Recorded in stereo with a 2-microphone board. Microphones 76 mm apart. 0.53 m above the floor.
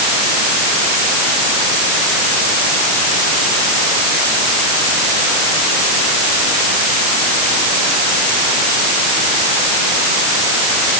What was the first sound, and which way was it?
Only background noise.